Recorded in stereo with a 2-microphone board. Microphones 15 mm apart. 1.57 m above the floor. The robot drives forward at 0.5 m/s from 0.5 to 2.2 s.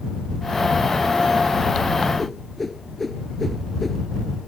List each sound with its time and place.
2.2 s a whoosh: 10° left (ahead or behind)